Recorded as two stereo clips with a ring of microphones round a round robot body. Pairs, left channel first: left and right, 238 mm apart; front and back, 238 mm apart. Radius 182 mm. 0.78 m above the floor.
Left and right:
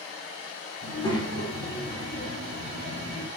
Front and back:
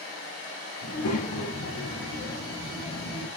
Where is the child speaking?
15° left, 5 m; by 3.3 s 35° left, 4.5 m.